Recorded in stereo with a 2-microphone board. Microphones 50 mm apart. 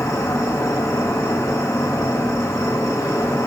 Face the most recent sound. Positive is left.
turn(degrees=80)